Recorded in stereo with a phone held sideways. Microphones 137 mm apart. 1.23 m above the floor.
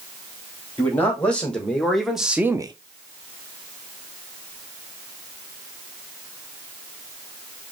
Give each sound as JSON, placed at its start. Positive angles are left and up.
{"t": 0.8, "sound": "a man speaking", "side_deg": 10, "distance_m": 2.5}